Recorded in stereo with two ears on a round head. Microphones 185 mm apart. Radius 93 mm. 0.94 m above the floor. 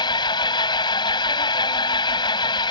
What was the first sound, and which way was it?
An engine running, 25° left (ahead or behind).